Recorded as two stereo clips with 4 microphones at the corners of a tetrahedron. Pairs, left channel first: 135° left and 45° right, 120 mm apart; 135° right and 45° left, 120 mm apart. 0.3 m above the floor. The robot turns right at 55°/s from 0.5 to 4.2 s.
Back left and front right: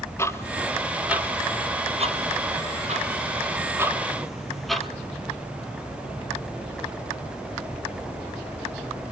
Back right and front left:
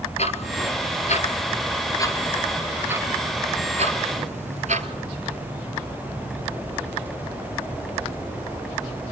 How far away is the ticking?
About 1.4 m.